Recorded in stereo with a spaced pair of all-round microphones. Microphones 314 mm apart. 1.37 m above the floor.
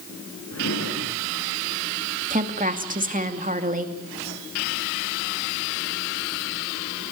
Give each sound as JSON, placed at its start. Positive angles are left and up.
{"t": 0.5, "sound": "a drawer", "side_deg": 50, "distance_m": 6.0}
{"t": 2.3, "sound": "a woman speaking", "side_deg": -25, "distance_m": 2.5}